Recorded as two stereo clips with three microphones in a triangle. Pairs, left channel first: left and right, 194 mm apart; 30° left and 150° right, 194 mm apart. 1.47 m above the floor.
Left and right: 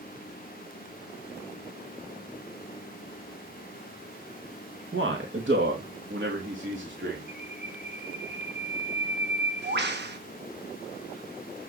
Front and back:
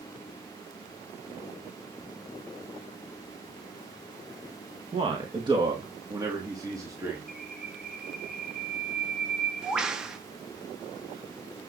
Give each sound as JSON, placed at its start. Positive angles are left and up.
{"t": 4.9, "sound": "a man speaking", "azimuth_deg": -90, "distance_m": 2.0}
{"t": 7.3, "sound": "a bird", "azimuth_deg": -65, "distance_m": 1.4}